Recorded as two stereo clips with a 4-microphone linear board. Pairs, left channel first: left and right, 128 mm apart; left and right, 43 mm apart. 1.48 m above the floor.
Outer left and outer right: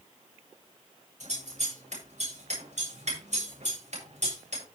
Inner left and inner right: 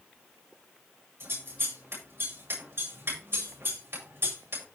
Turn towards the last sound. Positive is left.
turn(degrees=-65)  # may be behind; listen again after turning